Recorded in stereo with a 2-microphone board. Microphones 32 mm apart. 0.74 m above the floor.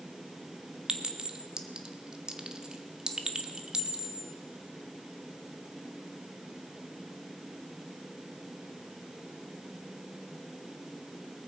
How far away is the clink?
About 0.9 m.